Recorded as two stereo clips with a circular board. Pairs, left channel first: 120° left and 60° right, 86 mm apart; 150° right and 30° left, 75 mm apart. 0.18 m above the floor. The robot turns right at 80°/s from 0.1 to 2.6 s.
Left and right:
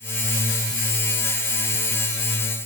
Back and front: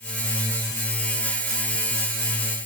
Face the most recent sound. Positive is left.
No sound to turn to.